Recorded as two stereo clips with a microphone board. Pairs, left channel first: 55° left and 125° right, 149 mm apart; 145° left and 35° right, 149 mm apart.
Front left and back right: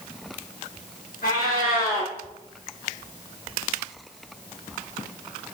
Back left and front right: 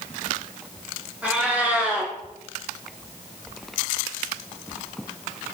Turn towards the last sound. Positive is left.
turn(degrees=50)